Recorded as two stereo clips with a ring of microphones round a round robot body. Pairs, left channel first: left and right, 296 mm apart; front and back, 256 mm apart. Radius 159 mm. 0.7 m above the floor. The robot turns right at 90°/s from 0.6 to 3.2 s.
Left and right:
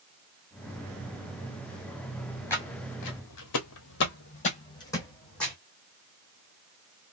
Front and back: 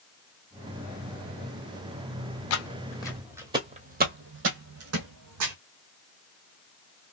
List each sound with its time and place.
2.5 s footsteps: 5° left, 1.3 m; by 5.5 s straight behind, 1.6 m